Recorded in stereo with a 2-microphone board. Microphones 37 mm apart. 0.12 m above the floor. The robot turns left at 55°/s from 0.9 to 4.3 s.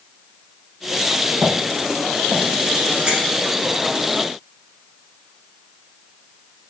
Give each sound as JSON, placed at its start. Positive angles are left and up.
{"t": 1.3, "sound": "footsteps", "side_deg": -60, "distance_m": 5.0}
{"t": 3.1, "sound": "a finger snap", "side_deg": -30, "distance_m": 5.0}